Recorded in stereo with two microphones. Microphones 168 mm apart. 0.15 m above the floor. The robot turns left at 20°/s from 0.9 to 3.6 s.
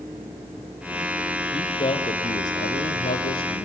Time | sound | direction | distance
1.5 | a man speaking | 145° left | 3 m